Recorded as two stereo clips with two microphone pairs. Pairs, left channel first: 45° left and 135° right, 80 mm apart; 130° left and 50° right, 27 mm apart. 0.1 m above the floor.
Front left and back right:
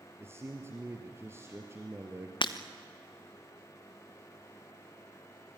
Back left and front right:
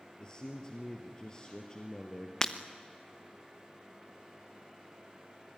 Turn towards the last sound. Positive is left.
turn(degrees=60)